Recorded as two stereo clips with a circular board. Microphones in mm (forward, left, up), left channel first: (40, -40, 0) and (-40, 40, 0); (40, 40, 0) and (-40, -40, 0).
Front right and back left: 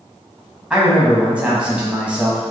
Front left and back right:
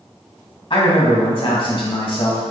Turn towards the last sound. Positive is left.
turn(degrees=60)